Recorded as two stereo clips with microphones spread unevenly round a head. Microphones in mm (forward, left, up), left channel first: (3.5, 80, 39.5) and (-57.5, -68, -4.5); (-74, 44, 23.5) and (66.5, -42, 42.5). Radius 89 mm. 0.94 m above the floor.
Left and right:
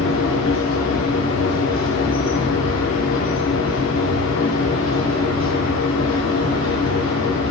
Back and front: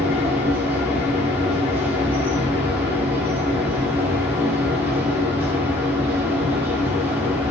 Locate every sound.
0.0 s a machine running: 50° left, 2.5 m